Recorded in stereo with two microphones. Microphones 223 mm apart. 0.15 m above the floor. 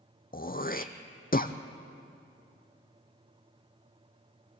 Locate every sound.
0.3 s throat clearing: 40° left (ahead or behind), 1.1 m